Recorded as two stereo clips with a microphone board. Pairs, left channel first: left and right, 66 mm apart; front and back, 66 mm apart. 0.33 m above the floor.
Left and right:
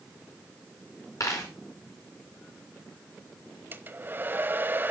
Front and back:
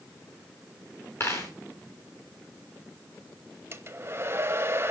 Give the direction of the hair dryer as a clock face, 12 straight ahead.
5 o'clock.